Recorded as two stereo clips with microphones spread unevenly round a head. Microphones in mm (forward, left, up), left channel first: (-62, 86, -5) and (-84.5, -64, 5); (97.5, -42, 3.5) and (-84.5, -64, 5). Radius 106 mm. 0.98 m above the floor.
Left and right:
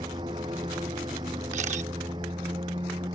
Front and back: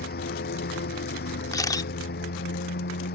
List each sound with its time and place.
0.0 s a lawn mower: 30° right
1.5 s a camera shutter: 65° right